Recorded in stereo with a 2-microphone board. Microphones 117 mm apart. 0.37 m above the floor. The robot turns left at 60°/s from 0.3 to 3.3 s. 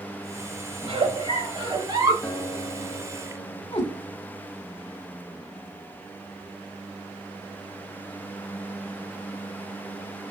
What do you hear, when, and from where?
0.8 s a giggle: 65° right, 1.2 m; by 2.1 s 145° right, 1.2 m
2.2 s a guitar: 170° left, 1.0 m; by 3.6 s 105° left, 1.0 m
3.7 s a cat meowing: 45° left (ahead or behind), 1.3 m